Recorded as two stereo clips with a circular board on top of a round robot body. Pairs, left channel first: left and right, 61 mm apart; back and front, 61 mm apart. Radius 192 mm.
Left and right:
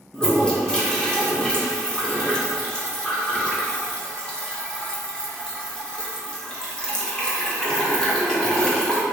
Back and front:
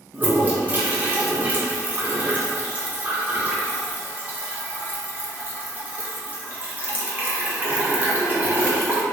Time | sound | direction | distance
0.1 | a toilet flushing | 30° left | 1.1 m